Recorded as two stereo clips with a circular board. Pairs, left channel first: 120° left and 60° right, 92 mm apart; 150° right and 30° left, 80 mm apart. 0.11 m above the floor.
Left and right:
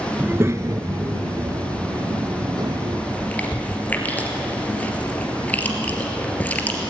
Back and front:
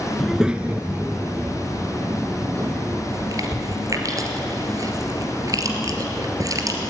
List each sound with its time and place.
0.2 s a child speaking: 65° right, 0.6 m; by 3.0 s 20° right, 2.5 m
3.1 s chewing: 50° left, 2.5 m